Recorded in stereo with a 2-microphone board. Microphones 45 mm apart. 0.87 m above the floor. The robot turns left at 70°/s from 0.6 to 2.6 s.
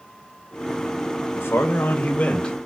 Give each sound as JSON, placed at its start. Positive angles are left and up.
{"t": 1.4, "sound": "a man speaking", "azimuth_deg": 100, "distance_m": 0.6}